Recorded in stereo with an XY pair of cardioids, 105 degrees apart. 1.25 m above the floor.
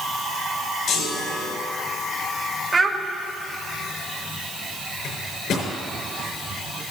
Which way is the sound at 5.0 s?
65° left.